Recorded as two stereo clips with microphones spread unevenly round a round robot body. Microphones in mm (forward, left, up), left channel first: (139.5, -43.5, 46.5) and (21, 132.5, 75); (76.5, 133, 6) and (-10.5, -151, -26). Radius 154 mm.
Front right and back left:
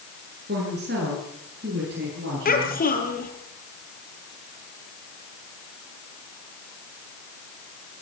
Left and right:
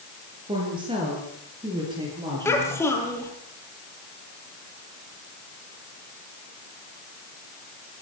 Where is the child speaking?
10° right, 7.5 m.